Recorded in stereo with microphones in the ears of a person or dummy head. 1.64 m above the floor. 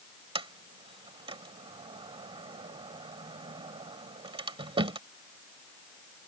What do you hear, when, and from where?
0.3 s a sliding door: 35° right (ahead or behind)